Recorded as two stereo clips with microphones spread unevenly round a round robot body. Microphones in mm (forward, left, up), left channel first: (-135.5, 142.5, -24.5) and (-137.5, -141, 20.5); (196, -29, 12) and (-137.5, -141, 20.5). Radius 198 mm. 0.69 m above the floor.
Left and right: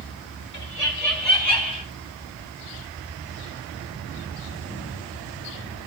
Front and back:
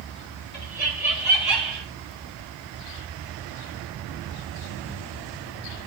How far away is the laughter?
About 5.5 m.